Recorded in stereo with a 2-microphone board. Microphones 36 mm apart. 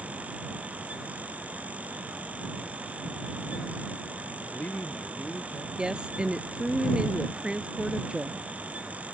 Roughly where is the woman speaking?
Right.